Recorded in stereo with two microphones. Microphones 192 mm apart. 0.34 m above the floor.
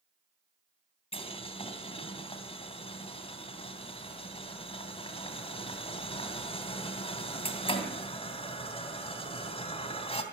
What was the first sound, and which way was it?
Boiling, 30° left (ahead or behind).